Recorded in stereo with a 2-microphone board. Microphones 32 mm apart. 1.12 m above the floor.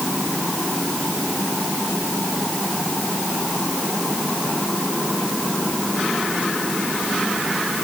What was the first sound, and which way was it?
Only background noise.